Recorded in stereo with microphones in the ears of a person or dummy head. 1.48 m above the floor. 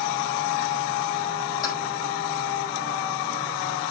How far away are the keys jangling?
About 6 m.